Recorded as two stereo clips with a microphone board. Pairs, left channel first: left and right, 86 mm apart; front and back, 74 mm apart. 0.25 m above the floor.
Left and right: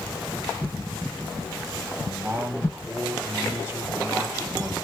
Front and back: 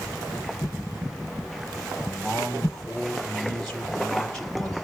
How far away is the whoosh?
About 3.5 m.